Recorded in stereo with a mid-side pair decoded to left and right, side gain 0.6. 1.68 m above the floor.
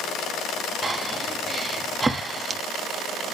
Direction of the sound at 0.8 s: 15° right.